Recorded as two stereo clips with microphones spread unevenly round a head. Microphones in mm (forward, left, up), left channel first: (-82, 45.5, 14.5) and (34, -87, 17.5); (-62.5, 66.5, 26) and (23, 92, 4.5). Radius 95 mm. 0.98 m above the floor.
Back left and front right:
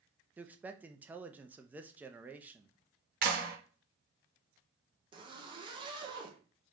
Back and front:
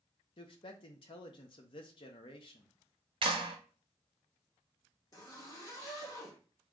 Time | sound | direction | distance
0.4 | a man speaking | 130° right | 0.6 m
3.2 | a clap | 5° right | 0.9 m
5.1 | a zipper | 105° right | 0.9 m